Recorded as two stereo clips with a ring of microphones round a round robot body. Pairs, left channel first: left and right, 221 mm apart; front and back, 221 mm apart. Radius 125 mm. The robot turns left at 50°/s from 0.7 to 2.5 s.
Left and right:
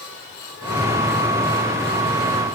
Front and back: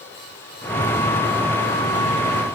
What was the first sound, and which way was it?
Only background noise.